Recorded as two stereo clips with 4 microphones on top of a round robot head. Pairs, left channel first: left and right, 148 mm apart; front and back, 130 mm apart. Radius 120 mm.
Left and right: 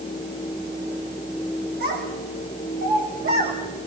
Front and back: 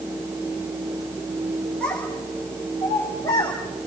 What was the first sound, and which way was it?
A child speaking, 85° right.